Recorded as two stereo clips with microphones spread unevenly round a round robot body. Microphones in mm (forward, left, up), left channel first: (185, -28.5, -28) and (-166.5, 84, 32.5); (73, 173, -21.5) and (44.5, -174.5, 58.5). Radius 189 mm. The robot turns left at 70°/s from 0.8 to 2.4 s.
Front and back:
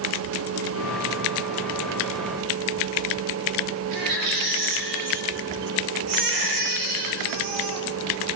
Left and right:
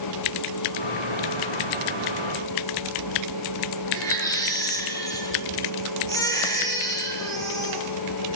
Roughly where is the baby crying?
Behind.